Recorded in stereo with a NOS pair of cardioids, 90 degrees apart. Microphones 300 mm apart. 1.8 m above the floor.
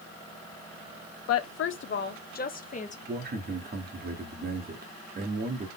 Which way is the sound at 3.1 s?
30° right.